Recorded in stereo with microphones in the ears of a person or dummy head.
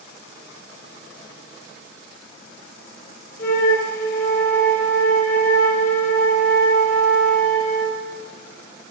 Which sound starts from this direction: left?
A flute, at 3.4 s.